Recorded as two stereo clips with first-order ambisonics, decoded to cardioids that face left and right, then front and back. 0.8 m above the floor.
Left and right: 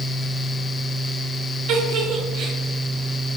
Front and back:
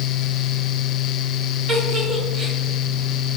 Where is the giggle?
115° right, 2.5 m.